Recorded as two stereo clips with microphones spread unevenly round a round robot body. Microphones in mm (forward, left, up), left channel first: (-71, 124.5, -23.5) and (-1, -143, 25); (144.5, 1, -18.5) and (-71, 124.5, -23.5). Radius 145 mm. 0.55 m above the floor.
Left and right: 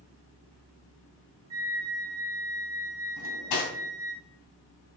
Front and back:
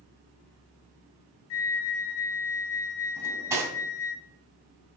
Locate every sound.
1.5 s a flute: straight ahead, 0.5 m
3.2 s cutlery clinking: 75° left, 2.5 m